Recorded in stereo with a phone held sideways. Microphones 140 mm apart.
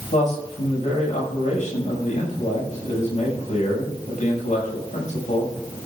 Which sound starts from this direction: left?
A man speaking, at 0.1 s.